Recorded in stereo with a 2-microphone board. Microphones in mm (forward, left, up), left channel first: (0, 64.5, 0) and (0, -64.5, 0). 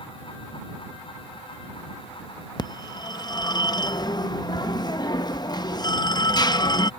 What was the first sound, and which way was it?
A phone ringing, 35° left (ahead or behind).